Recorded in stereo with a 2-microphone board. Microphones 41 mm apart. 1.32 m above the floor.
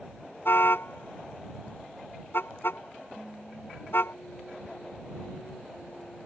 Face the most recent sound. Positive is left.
turn(degrees=55)  # may be behind; listen again after turning